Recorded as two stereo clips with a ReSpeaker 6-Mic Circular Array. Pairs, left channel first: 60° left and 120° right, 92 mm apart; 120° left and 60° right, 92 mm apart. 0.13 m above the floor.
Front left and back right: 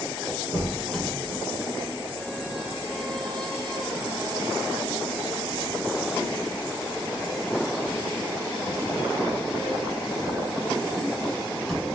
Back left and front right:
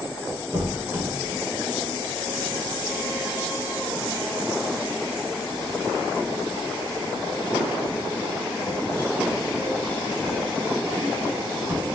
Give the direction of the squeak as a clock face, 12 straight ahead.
1 o'clock.